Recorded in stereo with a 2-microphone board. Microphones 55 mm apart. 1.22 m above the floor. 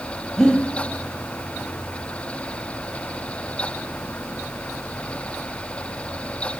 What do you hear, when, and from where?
0.4 s breathing: 15° left (ahead or behind), 2 m